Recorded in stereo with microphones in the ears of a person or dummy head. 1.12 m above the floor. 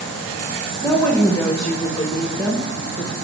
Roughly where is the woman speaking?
Centre.